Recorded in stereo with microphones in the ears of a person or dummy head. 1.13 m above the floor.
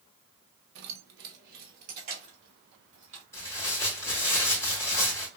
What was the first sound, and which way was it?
Keys jangling, 65° right (ahead or behind).